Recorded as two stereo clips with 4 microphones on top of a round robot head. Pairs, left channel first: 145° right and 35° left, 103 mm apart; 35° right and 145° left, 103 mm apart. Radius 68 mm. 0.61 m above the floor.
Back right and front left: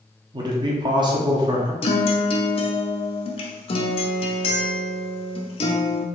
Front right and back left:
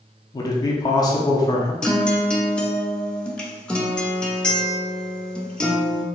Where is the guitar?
120° right, 0.6 m.